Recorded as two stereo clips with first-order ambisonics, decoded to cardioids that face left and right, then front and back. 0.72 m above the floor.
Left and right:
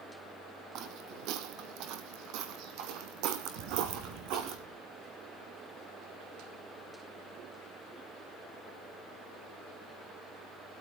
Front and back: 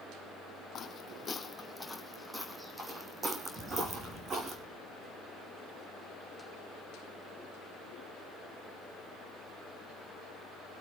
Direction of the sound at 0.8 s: 55° right.